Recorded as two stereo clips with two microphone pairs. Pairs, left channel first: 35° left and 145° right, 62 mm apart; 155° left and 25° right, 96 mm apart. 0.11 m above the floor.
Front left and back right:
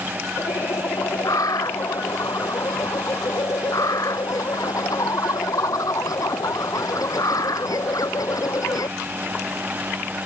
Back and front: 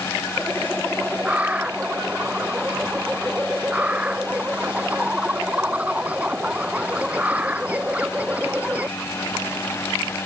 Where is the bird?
45° left.